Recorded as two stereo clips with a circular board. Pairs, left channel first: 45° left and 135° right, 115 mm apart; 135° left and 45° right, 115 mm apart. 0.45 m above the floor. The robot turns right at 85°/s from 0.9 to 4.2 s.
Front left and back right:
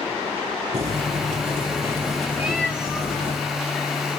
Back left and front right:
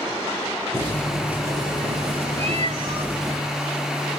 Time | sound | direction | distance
0.7 | boiling | 155° right | 4 m
2.4 | a cat meowing | 60° right | 4.5 m